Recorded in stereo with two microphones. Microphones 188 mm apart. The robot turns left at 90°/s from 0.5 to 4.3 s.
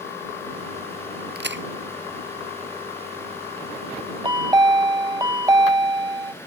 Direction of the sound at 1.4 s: 60° right (ahead or behind).